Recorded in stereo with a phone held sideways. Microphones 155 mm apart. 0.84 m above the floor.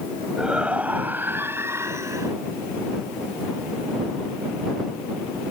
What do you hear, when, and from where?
0.4 s a shout: 5° right (ahead or behind); by 2.3 s 20° right (ahead or behind)